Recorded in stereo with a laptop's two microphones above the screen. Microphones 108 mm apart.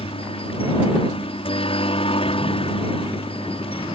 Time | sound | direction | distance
0.0 | a helicopter | 60° left (ahead or behind) | ?